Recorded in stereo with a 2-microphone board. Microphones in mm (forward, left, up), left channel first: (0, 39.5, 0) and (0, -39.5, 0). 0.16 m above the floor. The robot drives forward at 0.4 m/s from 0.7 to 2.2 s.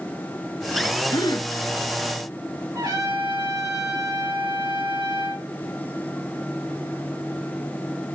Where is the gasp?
65° left (ahead or behind), 0.6 m; by 1.5 s 60° left (ahead or behind), 0.6 m.